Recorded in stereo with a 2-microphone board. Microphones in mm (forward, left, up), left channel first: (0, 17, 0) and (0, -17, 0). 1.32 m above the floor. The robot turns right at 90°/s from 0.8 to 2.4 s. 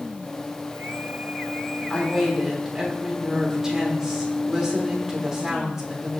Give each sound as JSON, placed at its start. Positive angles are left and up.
{"t": 1.9, "sound": "a woman speaking", "azimuth_deg": 150, "distance_m": 3.5}